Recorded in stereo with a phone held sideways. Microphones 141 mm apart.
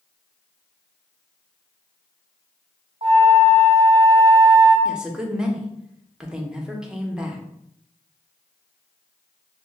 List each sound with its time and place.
3.0 s a flute: 40° right (ahead or behind), 1.0 m
4.8 s a woman speaking: 5° right (ahead or behind), 0.6 m